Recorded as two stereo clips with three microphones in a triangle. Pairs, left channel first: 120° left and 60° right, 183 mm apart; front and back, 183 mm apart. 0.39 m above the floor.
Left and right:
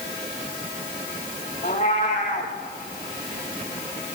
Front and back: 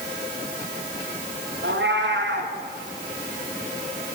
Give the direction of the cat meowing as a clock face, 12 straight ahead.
6 o'clock.